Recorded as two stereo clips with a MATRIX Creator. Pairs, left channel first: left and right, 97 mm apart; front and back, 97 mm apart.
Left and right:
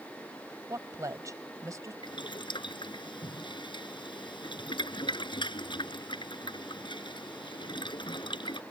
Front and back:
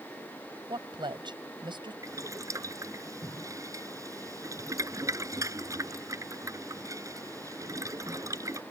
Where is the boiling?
125° left.